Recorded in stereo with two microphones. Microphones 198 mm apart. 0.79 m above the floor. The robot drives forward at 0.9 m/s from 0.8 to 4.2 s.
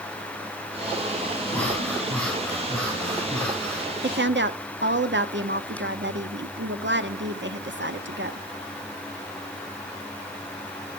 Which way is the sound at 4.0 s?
60° right (ahead or behind).